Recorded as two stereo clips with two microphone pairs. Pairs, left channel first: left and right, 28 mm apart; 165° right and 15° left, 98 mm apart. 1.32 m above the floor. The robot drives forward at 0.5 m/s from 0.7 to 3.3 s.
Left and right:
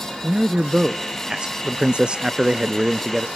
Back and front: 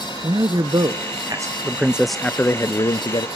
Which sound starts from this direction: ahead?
A man speaking, at 0.2 s.